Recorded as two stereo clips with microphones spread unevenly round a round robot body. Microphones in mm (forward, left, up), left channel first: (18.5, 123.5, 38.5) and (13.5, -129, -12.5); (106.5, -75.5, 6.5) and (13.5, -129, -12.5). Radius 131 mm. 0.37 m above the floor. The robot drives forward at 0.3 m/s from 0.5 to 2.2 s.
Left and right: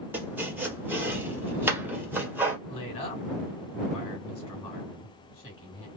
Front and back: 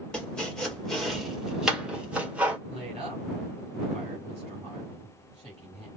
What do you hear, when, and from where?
0.1 s chopping: 70° right, 1.4 m; by 2.6 s 125° right, 1.4 m
2.7 s a woman speaking: 160° left, 4 m